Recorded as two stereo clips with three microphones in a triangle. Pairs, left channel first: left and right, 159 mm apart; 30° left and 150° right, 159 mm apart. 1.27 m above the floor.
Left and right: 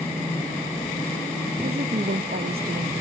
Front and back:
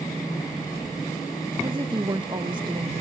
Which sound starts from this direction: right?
A woman speaking, at 1.6 s.